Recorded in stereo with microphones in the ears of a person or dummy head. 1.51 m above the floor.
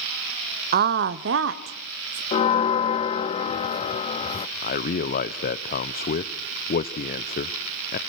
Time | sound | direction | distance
0.7 | a woman speaking | 45° right (ahead or behind) | 0.7 m
2.3 | a bell | 35° left (ahead or behind) | 0.6 m
4.6 | a man speaking | 45° left (ahead or behind) | 0.8 m